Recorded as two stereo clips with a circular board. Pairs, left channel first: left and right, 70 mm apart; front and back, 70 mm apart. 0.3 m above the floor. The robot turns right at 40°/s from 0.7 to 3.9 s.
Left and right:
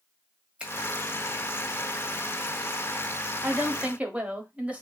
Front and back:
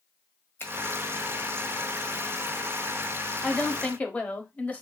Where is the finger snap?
30° right, 1.5 m.